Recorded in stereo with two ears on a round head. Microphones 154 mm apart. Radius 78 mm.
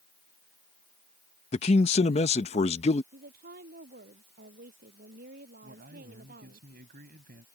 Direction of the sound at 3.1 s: 60° right (ahead or behind).